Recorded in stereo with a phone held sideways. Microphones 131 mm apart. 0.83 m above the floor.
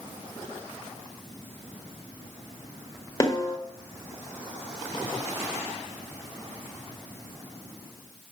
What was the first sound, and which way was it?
A snare drum, 25° left (ahead or behind).